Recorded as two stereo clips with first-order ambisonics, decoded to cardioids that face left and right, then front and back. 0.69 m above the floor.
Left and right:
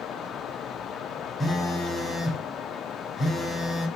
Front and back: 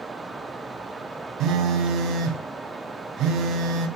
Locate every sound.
1.4 s a phone buzzing: 165° left, 1.3 m